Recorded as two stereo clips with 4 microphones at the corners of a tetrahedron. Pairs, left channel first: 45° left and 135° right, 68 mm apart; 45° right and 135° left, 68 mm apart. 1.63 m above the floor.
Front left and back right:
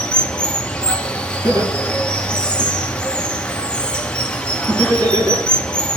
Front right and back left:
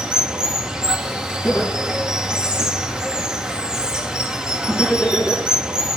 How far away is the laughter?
About 4.5 m.